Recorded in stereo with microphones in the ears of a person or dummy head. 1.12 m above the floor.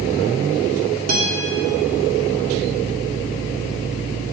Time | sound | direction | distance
1.1 | a guitar | 60° right (ahead or behind) | 2 m